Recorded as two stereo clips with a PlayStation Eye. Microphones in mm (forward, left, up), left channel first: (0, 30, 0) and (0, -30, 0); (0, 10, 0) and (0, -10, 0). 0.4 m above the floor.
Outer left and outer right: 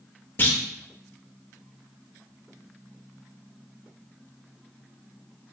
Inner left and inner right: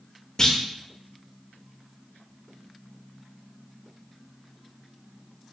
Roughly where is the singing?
I don't hear singing.